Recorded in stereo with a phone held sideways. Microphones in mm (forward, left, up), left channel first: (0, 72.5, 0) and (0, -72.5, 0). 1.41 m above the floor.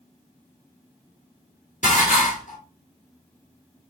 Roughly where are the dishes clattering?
Left.